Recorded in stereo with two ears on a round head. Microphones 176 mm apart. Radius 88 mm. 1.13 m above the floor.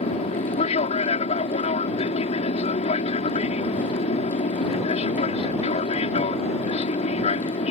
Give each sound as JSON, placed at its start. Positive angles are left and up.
{"t": 0.0, "sound": "an aircraft", "side_deg": 35}